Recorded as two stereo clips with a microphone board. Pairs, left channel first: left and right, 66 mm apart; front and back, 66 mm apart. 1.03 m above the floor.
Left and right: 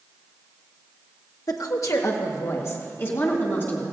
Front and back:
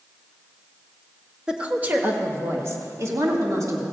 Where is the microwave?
No microwave in this recording.